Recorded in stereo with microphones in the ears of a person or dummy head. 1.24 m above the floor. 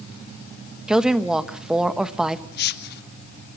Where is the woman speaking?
Centre (ahead or behind), 1.1 m.